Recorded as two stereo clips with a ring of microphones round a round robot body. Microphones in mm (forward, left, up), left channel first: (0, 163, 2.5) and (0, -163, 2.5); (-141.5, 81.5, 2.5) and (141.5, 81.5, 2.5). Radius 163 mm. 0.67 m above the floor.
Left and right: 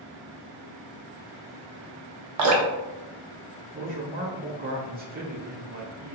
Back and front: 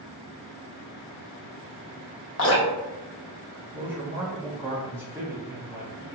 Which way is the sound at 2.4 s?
130° right.